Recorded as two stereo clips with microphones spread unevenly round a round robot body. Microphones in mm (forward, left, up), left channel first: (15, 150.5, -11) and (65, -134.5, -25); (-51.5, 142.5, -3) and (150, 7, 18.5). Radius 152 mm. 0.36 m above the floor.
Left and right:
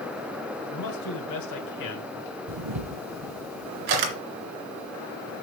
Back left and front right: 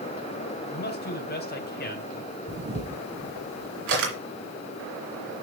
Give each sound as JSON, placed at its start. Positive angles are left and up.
{"t": 0.7, "sound": "a man speaking", "azimuth_deg": 110, "distance_m": 2.5}
{"t": 2.5, "sound": "a camera shutter", "azimuth_deg": -90, "distance_m": 2.5}